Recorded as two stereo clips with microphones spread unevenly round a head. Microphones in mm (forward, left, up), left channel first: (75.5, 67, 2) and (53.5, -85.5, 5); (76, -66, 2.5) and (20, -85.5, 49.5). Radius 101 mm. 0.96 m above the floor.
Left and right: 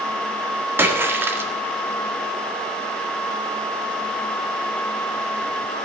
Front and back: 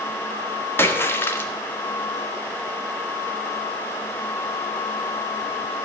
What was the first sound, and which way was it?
A splash, 20° right.